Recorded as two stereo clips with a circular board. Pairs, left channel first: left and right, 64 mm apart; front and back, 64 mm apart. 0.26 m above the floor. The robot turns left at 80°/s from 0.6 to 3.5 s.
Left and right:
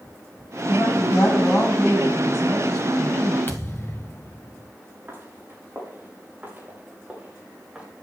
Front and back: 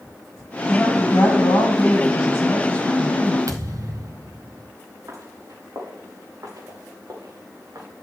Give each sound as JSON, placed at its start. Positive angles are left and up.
{"t": 0.7, "sound": "a woman speaking", "azimuth_deg": 90, "distance_m": 10.0}
{"t": 3.5, "sound": "a thud", "azimuth_deg": 145, "distance_m": 1.2}
{"t": 5.1, "sound": "footsteps", "azimuth_deg": -145, "distance_m": 7.5}